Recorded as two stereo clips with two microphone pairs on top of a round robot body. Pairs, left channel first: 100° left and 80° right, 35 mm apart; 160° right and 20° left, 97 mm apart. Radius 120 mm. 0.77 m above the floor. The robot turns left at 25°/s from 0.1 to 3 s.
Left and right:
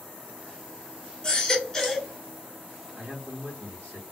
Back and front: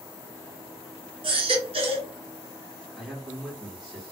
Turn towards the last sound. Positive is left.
turn(degrees=-70)